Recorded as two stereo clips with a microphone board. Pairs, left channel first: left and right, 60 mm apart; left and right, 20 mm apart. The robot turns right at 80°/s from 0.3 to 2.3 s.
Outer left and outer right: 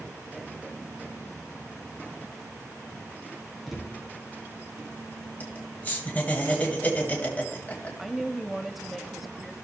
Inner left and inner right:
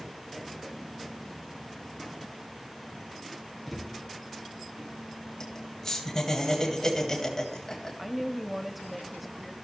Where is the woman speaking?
Centre (ahead or behind), 0.9 m.